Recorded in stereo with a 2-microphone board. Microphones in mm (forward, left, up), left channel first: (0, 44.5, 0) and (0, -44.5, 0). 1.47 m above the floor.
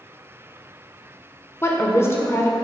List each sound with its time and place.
1.6 s a woman speaking: 30° left (ahead or behind), 0.6 m